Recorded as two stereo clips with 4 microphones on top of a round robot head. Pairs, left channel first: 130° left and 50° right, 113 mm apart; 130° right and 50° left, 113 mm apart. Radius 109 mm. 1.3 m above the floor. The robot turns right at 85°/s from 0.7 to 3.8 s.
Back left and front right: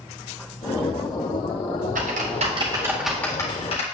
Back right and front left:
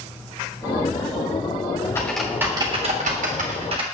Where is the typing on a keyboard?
60° right, 1.7 m; by 3.8 s 95° left, 1.7 m.